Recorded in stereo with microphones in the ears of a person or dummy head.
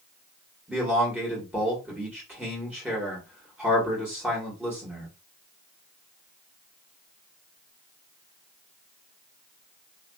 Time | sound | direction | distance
0.7 | a man speaking | 5° right (ahead or behind) | 1.2 m